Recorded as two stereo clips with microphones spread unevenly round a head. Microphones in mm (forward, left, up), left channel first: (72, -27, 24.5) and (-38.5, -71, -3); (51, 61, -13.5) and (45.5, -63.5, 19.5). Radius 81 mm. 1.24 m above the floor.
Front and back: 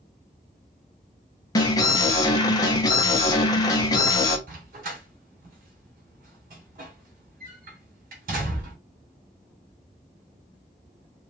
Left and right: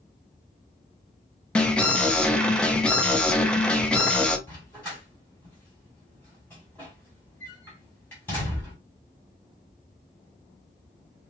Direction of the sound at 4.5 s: 175° left.